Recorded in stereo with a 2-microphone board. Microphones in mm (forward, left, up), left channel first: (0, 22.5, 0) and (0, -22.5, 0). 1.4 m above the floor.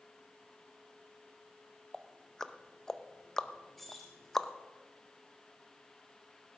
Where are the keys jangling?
5° left (ahead or behind), 3 m.